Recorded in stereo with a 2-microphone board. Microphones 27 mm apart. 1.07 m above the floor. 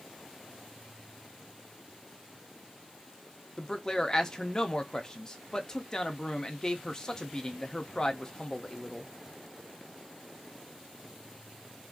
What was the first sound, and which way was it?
A man speaking, 25° left (ahead or behind).